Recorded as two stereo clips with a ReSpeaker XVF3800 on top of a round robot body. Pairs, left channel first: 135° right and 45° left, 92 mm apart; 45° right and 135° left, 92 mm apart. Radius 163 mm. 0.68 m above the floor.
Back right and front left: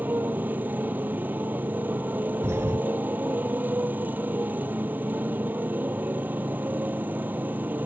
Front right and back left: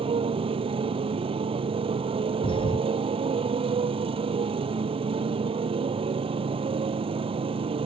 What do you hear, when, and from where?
0.0 s a motorcycle: 115° left
2.4 s a thud: 20° right